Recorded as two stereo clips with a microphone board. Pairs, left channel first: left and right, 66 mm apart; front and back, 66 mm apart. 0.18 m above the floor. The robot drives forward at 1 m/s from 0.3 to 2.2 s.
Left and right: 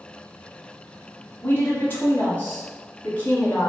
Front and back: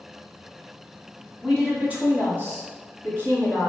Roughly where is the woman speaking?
Left.